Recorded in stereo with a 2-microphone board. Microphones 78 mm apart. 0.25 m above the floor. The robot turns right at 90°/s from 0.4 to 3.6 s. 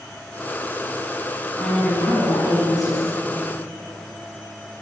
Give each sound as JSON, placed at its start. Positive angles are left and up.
{"t": 1.6, "sound": "a woman speaking", "azimuth_deg": 0, "distance_m": 2.0}